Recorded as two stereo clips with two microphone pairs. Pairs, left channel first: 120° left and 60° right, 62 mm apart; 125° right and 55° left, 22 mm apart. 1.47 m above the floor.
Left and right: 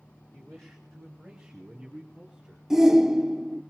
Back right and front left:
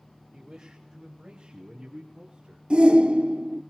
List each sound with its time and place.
0.3 s a man speaking: 50° left, 1.7 m; by 2.6 s 20° left, 4.5 m
2.7 s a shout: 20° left, 0.6 m